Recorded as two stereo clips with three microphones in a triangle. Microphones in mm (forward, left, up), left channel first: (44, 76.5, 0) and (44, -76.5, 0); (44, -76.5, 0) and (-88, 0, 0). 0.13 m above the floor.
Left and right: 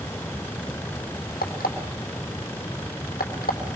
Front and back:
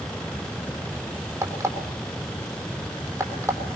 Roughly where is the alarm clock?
Left.